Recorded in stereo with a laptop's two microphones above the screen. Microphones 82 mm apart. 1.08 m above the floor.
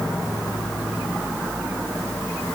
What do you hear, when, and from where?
Only background noise.